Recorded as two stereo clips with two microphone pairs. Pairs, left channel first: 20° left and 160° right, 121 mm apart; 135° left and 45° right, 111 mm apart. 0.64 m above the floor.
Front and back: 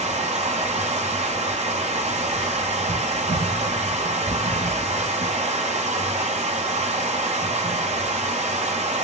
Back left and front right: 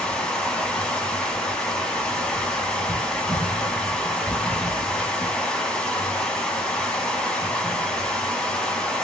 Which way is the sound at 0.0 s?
145° right.